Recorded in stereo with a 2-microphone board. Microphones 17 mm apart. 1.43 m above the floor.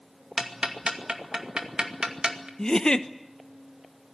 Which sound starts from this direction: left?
A giggle, at 2.6 s.